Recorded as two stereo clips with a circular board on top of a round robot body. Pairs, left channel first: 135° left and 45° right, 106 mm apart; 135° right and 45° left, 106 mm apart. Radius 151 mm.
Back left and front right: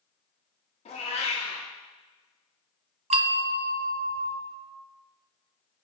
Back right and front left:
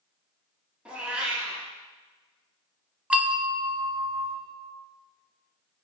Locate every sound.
0.8 s a cat meowing: 125° left, 1.0 m
3.1 s a bell: 35° right, 0.8 m